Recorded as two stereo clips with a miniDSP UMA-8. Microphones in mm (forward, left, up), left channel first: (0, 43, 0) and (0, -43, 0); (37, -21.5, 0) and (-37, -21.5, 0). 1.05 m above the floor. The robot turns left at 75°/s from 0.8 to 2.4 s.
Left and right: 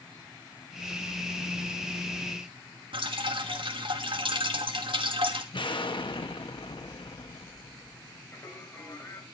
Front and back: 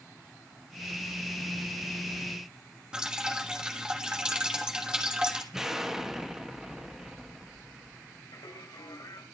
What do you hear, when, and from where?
2.9 s dripping: 100° right, 2.0 m
5.5 s an explosion: 95° left, 1.7 m
8.3 s singing: 25° left, 4 m